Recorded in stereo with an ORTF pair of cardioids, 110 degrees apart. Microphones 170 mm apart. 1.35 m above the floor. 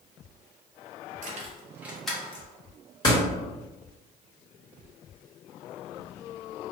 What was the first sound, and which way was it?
Keys jangling, 55° right.